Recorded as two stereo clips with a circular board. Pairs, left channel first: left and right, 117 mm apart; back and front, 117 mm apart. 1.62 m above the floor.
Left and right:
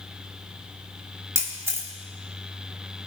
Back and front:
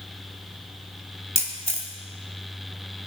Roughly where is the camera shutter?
Ahead right.